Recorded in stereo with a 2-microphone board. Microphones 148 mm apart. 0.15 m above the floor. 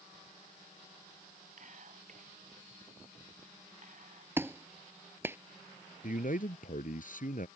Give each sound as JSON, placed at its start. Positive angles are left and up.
{"t": 1.6, "sound": "whispering", "side_deg": -55}
{"t": 4.4, "sound": "a clap", "side_deg": -15}
{"t": 6.0, "sound": "a man speaking", "side_deg": 60}